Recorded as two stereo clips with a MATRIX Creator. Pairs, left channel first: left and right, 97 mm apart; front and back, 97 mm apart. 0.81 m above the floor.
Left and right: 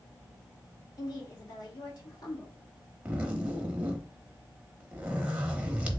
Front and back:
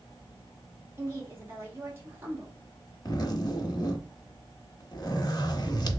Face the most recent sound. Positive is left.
turn(degrees=-20)